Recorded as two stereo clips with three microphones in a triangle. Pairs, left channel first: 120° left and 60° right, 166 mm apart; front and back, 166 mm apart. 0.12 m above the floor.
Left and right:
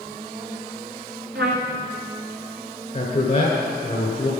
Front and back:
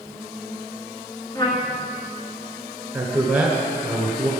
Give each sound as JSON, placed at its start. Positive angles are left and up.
{"t": 1.4, "sound": "a trumpet", "azimuth_deg": -70, "distance_m": 1.7}
{"t": 2.9, "sound": "a man speaking", "azimuth_deg": 105, "distance_m": 1.6}